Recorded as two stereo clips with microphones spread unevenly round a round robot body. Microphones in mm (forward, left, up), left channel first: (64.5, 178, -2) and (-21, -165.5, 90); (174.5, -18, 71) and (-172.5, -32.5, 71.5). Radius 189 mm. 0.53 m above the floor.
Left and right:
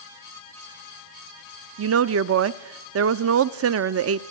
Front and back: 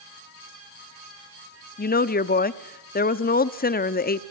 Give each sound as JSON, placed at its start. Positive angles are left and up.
{"t": 1.8, "sound": "a woman speaking", "azimuth_deg": -50, "distance_m": 0.7}